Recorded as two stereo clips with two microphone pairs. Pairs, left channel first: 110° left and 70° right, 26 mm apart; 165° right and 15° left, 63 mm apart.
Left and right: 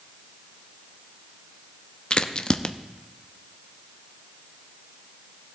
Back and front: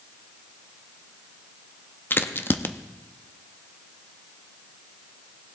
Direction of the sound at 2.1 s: 145° left.